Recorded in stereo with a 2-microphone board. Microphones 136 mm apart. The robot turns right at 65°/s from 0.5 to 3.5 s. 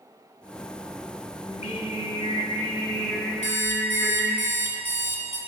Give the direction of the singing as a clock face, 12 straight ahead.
10 o'clock.